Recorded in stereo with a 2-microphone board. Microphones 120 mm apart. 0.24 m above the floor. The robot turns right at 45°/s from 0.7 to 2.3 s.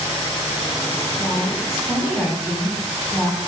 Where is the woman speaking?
165° left, 1.7 m; by 3.4 s 145° right, 1.7 m.